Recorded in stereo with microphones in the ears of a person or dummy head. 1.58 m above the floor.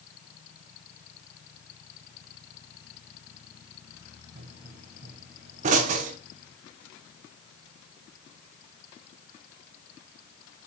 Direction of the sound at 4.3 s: 40° right (ahead or behind).